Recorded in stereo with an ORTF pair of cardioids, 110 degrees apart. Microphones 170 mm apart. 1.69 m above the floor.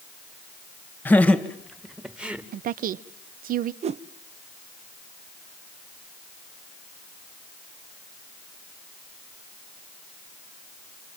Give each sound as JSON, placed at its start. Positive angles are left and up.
{"t": 1.1, "sound": "laughter", "azimuth_deg": 10, "distance_m": 2.0}
{"t": 2.5, "sound": "a woman speaking", "azimuth_deg": -60, "distance_m": 1.0}
{"t": 3.8, "sound": "a whoosh", "azimuth_deg": -40, "distance_m": 0.7}